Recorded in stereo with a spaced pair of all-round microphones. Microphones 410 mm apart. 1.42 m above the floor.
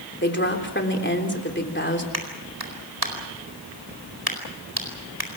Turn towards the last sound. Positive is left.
turn(degrees=-60)  # may be behind; listen again after turning